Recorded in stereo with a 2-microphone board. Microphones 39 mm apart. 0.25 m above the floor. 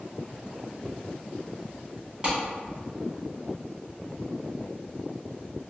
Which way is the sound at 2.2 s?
25° right (ahead or behind).